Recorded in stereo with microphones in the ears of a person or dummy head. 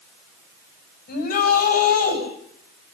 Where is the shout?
45° left (ahead or behind), 8 m.